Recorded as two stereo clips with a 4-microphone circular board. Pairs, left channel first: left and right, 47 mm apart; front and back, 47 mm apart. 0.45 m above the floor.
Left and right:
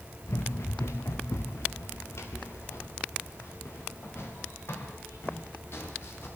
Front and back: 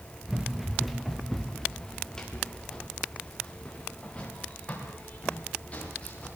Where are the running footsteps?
100° left, 3 m; by 6.3 s 60° left, 9 m.